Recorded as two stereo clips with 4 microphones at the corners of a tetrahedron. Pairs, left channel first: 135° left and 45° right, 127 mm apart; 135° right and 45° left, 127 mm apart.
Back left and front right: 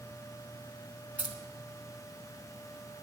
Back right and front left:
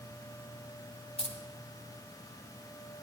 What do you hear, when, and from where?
1.2 s keys jangling: 120° right, 1.1 m